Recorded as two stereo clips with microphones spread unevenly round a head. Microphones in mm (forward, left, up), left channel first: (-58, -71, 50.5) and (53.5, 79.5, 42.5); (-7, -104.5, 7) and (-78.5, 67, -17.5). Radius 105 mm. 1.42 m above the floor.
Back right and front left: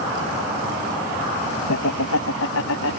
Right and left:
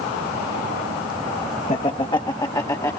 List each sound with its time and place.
1.7 s laughter: 130° right; by 3.0 s 140° right